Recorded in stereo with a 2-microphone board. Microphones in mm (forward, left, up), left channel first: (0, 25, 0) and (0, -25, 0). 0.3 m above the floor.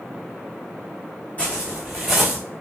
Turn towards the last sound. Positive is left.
turn(degrees=-5)  # may be behind; listen again after turning